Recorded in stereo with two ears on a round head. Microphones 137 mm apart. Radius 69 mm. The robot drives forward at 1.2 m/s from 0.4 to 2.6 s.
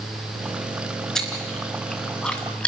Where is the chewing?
5° left (ahead or behind), 3 m.